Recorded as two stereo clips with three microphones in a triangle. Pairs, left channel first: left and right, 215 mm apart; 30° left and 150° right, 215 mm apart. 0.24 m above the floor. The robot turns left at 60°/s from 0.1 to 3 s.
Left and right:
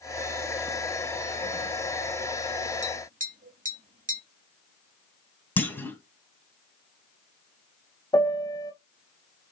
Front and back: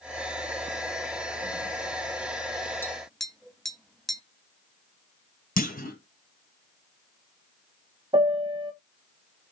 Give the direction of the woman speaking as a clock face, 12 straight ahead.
I don't hear a woman speaking.